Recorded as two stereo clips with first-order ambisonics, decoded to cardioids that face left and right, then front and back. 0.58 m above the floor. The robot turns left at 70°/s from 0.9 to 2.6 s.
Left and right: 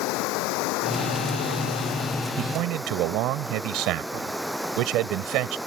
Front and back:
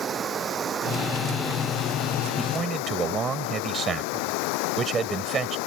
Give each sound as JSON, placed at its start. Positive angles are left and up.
{"t": 0.0, "sound": "running water", "azimuth_deg": 115}
{"t": 2.4, "sound": "a man speaking", "azimuth_deg": -100}